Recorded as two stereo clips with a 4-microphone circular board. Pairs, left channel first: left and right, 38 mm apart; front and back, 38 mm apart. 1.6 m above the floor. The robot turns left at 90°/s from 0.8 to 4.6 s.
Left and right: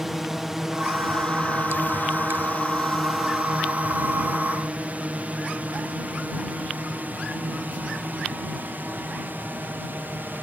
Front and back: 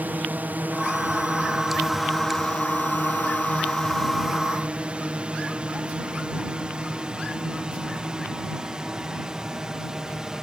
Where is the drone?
170° right; by 10.4 s 105° right.